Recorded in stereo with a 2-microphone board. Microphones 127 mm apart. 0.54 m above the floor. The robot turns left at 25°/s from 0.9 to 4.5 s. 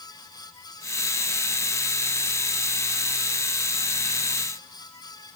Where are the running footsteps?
I don't hear running footsteps.